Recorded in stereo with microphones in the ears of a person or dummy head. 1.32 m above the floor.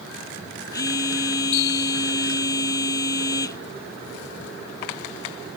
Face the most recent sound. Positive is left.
turn(degrees=20)  # may be behind; listen again after turning